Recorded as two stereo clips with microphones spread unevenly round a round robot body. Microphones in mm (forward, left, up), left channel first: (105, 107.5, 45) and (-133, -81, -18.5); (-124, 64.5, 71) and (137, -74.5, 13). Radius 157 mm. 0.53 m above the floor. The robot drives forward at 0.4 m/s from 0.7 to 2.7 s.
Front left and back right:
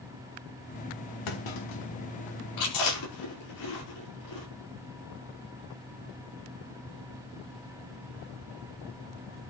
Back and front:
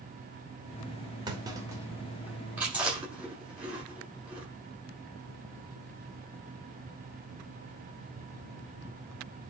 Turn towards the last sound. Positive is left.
turn(degrees=55)